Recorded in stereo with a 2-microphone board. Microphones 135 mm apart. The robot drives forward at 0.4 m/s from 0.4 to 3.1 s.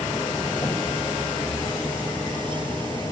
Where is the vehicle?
30° left (ahead or behind).